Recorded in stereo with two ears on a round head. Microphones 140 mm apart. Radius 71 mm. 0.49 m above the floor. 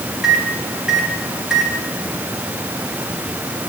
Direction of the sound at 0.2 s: 5° right (ahead or behind).